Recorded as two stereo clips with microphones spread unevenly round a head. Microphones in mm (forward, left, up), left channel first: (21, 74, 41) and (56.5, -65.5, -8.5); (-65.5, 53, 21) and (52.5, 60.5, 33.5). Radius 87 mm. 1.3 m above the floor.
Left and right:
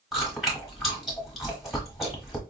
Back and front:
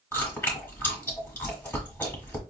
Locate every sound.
0.1 s chewing: 120° left, 1.1 m